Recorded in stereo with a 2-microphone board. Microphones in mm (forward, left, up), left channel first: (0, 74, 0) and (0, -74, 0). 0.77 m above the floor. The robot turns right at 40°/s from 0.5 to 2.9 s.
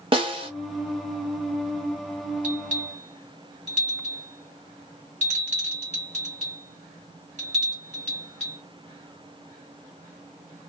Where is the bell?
60° right (ahead or behind), 1.9 m; by 8.6 s 50° right (ahead or behind), 1.9 m.